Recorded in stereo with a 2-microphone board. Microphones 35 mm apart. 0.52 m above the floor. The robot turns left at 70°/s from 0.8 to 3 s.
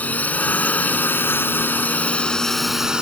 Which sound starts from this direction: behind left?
A drone, at 0.0 s.